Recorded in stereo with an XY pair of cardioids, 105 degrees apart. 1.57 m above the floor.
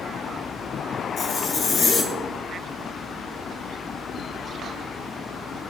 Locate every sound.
1.2 s a zipper: 60° left, 1.9 m